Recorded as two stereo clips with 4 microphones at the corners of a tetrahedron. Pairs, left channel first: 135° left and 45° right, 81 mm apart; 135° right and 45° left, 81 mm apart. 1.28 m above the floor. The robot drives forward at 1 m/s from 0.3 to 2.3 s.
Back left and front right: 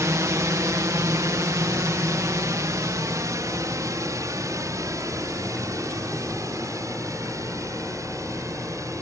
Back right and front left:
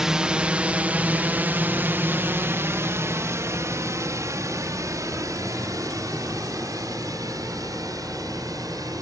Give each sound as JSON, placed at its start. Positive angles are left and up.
{"t": 0.0, "sound": "a drone", "azimuth_deg": -35}